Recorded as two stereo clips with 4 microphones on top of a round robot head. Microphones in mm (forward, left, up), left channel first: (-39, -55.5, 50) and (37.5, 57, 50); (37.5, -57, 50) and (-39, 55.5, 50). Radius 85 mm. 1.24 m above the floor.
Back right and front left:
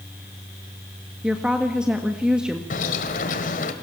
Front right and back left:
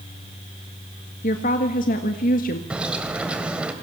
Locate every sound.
1.2 s a woman speaking: 30° right, 1.5 m
2.7 s a bird: 155° right, 1.7 m